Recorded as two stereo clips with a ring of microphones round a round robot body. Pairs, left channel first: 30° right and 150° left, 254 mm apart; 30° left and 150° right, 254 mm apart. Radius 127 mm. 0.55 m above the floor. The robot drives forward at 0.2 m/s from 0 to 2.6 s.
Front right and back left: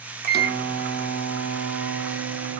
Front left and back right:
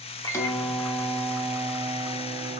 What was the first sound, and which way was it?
A microwave, 105° left.